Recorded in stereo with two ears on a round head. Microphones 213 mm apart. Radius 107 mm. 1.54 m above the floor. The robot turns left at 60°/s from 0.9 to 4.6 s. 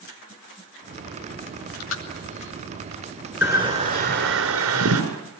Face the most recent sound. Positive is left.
turn(degrees=-80)